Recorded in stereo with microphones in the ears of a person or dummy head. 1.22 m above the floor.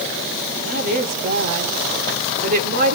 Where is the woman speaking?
50° right (ahead or behind), 3 m.